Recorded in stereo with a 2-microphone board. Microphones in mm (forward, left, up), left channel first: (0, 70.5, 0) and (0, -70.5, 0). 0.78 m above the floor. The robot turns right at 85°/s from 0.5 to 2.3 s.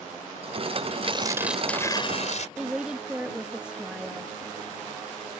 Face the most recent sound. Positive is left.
turn(degrees=-5)  # may be behind; listen again after turning